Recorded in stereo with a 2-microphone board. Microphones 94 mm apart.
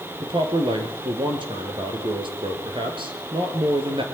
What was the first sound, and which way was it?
A man speaking, 60° right (ahead or behind).